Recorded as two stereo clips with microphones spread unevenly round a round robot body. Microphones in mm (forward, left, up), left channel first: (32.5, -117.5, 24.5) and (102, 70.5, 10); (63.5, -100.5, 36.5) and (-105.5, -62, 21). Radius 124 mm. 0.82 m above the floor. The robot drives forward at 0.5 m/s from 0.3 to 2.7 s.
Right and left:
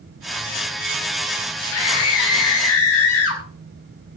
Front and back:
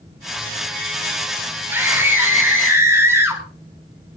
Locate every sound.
1.7 s a scream: 115° right, 7 m